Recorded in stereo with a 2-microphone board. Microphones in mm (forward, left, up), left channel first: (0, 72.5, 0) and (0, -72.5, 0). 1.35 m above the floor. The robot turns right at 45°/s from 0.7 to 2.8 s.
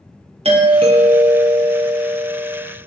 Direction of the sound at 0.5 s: 70° right.